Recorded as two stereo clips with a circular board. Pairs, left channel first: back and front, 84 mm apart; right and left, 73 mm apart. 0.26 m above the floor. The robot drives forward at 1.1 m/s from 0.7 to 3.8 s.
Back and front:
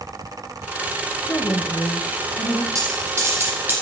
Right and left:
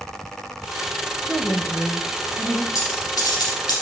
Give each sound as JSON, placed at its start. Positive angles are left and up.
{"t": 1.3, "sound": "a woman speaking", "azimuth_deg": -175, "distance_m": 1.0}
{"t": 2.8, "sound": "a dropped coin", "azimuth_deg": -50, "distance_m": 3.5}